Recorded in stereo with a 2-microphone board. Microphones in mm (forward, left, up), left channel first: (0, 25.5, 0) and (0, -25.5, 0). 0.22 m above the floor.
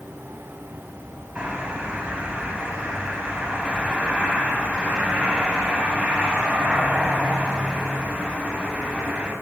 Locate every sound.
1.4 s a bird: 20° right (ahead or behind), 1.7 m